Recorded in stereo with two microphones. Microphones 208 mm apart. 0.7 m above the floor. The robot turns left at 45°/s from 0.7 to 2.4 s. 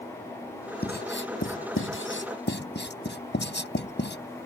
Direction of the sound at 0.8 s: 50° left (ahead or behind).